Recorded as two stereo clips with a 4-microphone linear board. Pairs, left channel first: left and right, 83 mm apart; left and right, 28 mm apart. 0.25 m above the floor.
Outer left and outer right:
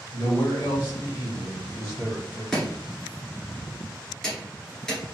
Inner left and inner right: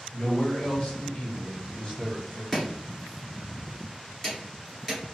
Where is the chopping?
5° left (ahead or behind), 1.7 m.